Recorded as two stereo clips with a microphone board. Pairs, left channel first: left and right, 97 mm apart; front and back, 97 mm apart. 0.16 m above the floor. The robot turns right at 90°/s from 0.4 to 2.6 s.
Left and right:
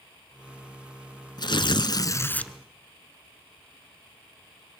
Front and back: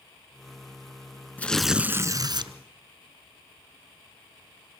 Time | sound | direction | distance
1.4 | tearing paper | 70° left | 1.1 m